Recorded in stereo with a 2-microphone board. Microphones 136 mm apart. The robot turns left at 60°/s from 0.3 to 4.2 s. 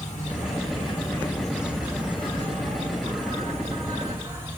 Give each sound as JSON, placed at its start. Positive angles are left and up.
{"t": 0.0, "sound": "an insect", "azimuth_deg": 75, "distance_m": 1.3}